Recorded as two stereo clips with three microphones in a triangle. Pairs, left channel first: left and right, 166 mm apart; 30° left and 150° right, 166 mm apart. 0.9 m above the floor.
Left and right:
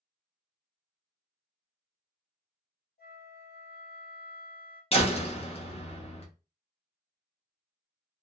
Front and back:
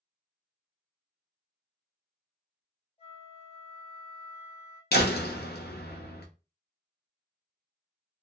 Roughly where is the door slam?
Ahead left.